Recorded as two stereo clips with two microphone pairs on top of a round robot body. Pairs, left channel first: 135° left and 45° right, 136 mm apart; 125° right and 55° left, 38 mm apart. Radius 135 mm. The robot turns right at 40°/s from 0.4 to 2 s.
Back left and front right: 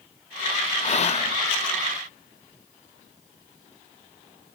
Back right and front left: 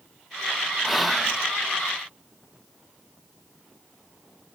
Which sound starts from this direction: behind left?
Whispering, at 0.8 s.